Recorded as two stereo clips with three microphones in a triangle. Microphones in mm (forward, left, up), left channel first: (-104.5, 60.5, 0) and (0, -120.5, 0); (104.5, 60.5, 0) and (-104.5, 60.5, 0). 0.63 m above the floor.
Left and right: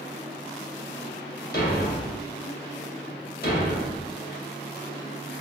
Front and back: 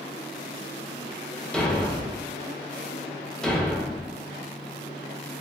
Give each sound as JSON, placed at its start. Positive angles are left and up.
{"t": 1.5, "sound": "a thud", "azimuth_deg": 85, "distance_m": 0.7}